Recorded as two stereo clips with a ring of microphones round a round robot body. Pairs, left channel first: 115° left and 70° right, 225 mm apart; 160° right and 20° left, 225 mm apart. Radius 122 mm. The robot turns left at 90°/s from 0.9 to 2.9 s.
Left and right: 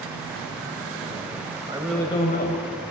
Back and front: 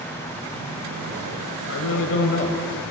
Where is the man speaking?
140° right, 2.5 m; by 2.9 s 110° left, 2.5 m.